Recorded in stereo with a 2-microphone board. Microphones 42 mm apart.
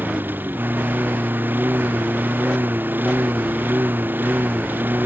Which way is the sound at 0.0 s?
50° right (ahead or behind).